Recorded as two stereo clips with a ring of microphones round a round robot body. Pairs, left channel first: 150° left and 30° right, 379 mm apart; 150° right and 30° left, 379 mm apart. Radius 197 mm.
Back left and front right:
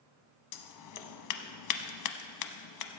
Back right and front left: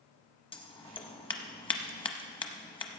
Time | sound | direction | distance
0.5 | scissors | 135° left | 0.8 m